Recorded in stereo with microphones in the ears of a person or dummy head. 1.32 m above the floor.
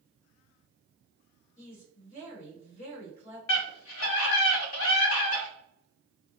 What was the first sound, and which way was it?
A woman speaking, 35° left (ahead or behind).